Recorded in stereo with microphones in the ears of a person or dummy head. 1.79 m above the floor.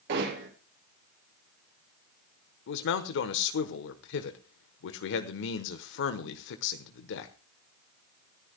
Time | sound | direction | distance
0.1 | hammering | 60° right (ahead or behind) | 7 m
2.7 | a man speaking | 65° left (ahead or behind) | 1.1 m